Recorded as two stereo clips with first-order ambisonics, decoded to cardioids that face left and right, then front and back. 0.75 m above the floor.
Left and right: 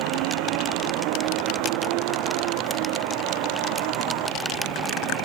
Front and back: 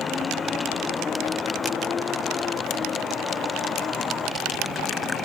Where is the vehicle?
70° right.